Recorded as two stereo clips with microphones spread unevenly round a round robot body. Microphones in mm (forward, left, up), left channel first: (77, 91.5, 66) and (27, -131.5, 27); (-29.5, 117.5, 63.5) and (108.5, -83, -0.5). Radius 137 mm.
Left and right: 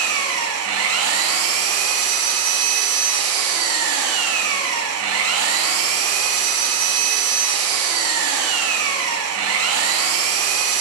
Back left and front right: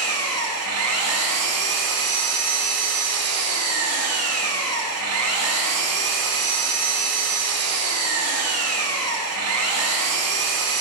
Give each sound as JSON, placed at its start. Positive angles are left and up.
{"t": 0.0, "sound": "an engine running", "azimuth_deg": -85, "distance_m": 0.9}